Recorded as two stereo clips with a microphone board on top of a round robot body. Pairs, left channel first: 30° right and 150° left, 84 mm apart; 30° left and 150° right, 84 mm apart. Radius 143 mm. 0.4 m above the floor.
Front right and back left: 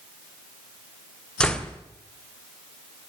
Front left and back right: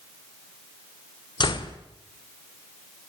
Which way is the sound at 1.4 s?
50° left.